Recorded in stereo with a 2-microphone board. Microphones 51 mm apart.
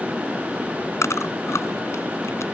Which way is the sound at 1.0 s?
65° left (ahead or behind).